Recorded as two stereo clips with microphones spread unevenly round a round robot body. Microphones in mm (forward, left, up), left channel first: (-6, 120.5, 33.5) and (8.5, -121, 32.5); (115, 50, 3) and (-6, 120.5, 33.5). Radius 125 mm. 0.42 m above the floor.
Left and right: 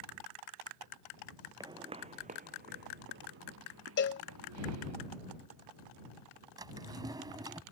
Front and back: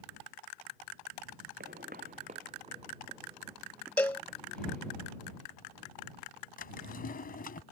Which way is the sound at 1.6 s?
165° right.